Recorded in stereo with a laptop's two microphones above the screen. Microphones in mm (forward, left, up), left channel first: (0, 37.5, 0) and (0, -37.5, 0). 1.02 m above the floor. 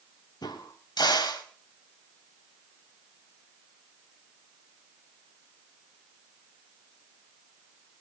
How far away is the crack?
About 4.5 m.